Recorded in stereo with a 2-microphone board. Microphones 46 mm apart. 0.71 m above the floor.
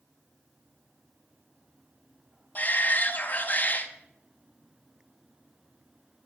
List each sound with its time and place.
2.5 s a shout: 40° left (ahead or behind), 0.7 m